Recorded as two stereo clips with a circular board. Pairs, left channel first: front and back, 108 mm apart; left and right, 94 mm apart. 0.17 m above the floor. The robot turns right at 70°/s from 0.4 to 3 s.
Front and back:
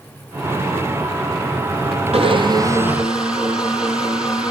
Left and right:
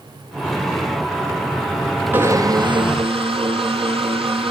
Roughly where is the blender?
Behind.